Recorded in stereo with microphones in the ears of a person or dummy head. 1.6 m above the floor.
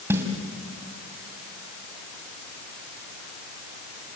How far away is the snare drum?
About 2.5 m.